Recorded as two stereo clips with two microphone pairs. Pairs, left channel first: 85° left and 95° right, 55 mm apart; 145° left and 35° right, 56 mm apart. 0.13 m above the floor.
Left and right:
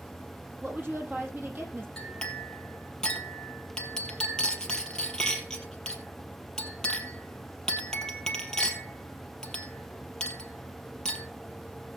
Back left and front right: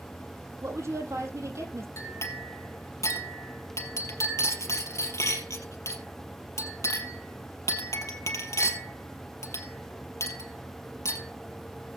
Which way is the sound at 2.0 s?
160° left.